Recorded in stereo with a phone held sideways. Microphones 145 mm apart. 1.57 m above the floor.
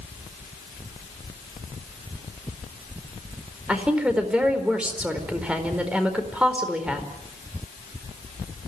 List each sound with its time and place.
3.7 s a woman speaking: 5° right (ahead or behind), 4.5 m